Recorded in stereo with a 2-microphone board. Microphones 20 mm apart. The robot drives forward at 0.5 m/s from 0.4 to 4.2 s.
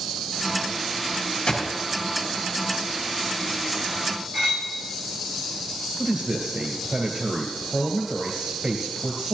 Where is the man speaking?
50° right (ahead or behind), 2 m.